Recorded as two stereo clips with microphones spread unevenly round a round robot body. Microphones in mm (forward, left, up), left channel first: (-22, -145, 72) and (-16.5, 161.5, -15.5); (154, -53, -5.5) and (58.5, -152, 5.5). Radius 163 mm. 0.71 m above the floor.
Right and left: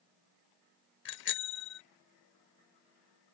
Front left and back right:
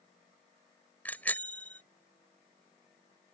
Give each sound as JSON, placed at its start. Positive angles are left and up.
{"t": 1.1, "sound": "a bicycle bell", "azimuth_deg": -35}